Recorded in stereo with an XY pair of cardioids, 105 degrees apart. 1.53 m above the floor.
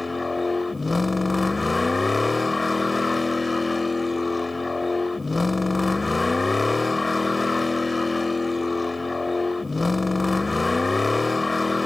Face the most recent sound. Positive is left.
turn(degrees=20)